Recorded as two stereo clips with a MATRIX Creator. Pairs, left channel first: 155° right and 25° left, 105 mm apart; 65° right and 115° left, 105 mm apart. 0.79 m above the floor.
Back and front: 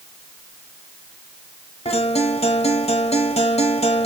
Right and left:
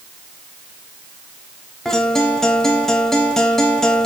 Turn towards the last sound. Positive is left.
turn(degrees=-150)